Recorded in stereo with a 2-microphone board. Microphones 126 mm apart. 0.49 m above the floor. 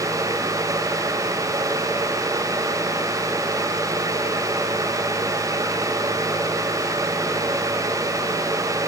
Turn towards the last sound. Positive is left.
No sound to turn to.